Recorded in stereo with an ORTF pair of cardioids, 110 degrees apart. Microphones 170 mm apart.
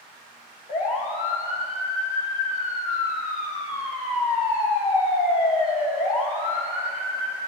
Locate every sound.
0.7 s a siren: 45° left, 3.5 m